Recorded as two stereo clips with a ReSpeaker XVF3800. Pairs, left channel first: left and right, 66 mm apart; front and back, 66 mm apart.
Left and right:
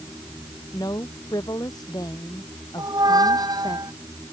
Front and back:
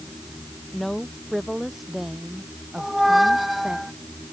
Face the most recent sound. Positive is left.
turn(degrees=-90)